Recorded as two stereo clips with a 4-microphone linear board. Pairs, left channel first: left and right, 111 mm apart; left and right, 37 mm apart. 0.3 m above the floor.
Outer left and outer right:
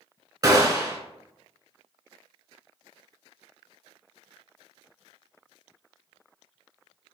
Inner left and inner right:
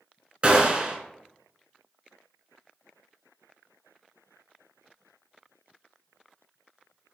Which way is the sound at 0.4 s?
35° right (ahead or behind).